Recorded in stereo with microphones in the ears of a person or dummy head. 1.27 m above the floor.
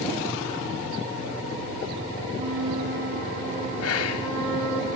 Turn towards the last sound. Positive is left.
turn(degrees=75)  # may be behind; listen again after turning